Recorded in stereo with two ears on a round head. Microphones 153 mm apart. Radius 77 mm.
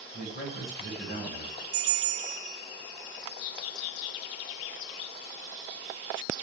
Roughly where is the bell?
Right.